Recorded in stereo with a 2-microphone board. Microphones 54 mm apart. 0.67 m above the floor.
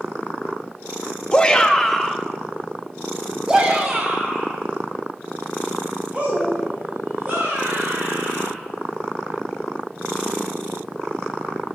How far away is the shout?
About 1.2 m.